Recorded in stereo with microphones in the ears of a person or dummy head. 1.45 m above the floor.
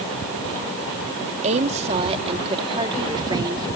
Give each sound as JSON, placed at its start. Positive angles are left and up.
{"t": 1.4, "sound": "a woman speaking", "side_deg": -35}